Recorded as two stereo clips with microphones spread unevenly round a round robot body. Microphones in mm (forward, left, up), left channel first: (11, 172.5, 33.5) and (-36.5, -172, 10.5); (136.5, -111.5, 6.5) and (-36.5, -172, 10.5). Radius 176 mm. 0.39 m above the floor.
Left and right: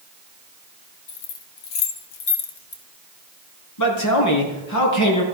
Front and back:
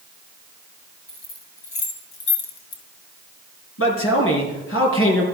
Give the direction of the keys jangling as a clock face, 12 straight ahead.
10 o'clock.